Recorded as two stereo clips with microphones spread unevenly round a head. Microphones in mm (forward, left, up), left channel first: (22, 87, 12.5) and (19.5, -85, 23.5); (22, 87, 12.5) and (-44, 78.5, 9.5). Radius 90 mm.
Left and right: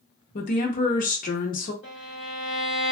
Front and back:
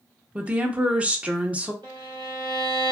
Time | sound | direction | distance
0.3 | a woman speaking | 120° left | 0.8 m
1.8 | a violin | 170° right | 1.7 m